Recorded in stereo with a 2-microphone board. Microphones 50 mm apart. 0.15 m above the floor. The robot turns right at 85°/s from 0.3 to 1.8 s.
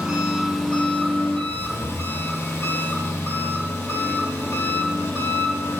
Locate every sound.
0.0 s an engine running: 25° right, 1.8 m; by 5.8 s 105° left, 1.8 m